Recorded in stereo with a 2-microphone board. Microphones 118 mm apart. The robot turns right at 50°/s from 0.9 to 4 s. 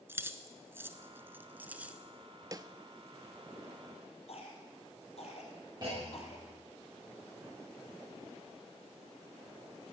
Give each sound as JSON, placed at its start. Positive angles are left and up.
{"t": 0.1, "sound": "keys jangling", "side_deg": -20, "distance_m": 0.8}
{"t": 2.5, "sound": "a snare drum", "side_deg": -30, "distance_m": 0.6}
{"t": 4.3, "sound": "a cough", "side_deg": 60, "distance_m": 4.0}
{"t": 5.8, "sound": "a clunk", "side_deg": -35, "distance_m": 7.5}